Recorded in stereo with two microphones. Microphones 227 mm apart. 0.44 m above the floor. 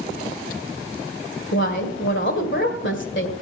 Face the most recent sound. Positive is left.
turn(degrees=55)  # may be behind; listen again after turning